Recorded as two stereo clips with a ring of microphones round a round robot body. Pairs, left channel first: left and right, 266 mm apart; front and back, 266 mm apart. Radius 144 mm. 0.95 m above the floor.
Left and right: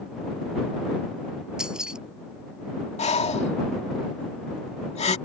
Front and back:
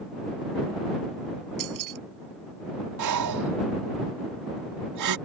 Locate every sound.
1.6 s keys jangling: 175° right
3.0 s breathing: 155° left